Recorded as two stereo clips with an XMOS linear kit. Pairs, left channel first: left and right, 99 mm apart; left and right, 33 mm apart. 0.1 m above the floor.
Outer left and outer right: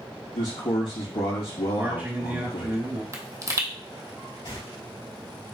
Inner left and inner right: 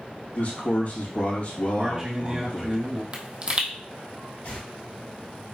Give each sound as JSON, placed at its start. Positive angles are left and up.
{"t": 0.3, "sound": "a man speaking", "side_deg": 65, "distance_m": 2.5}
{"t": 1.8, "sound": "a man speaking", "side_deg": -20, "distance_m": 1.6}
{"t": 3.1, "sound": "a pop", "side_deg": -30, "distance_m": 0.8}
{"t": 4.5, "sound": "tearing paper", "side_deg": 55, "distance_m": 2.0}